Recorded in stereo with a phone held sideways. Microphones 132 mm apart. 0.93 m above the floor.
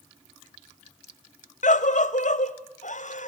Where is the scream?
70° left (ahead or behind), 0.8 m.